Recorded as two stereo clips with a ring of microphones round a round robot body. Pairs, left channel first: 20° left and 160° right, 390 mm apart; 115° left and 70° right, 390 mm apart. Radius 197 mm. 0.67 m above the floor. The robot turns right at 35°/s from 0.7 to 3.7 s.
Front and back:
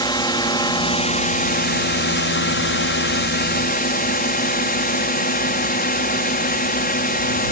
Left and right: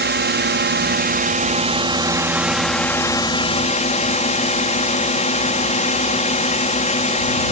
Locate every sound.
0.0 s a drone: 45° right; by 7.5 s 60° left